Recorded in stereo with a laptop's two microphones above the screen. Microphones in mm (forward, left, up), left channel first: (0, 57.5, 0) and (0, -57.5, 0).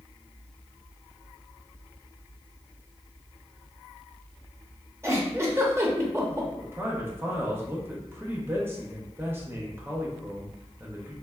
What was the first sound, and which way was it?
A giggle, 25° right (ahead or behind).